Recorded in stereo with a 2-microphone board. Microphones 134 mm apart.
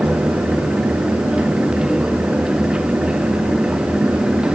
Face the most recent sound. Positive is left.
No sound to turn to.